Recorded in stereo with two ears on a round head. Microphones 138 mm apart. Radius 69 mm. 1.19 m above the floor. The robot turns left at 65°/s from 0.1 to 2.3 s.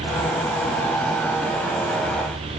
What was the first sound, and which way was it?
Only background noise.